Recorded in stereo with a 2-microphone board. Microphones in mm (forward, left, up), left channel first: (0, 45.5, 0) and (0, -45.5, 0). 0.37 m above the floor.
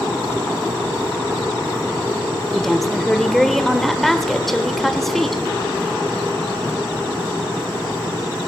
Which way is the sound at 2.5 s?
5° left (ahead or behind).